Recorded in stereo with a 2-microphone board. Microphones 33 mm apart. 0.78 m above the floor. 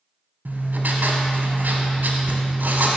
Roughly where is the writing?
Right.